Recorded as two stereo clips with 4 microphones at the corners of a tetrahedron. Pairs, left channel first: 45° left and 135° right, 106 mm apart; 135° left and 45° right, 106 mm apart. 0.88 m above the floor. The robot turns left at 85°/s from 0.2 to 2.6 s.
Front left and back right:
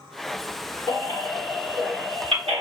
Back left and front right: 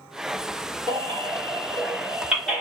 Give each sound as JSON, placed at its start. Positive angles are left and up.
{"t": 0.9, "sound": "a baby crying", "azimuth_deg": -5, "distance_m": 2.0}